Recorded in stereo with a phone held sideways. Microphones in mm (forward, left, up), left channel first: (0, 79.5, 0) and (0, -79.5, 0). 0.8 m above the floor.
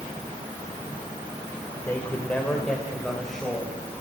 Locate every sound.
1.9 s a man speaking: 15° left (ahead or behind), 3 m; by 3.8 s centre (ahead or behind), 4 m